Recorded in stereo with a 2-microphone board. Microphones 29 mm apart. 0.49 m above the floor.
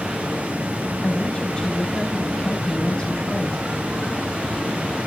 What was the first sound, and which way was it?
Running water, 85° right.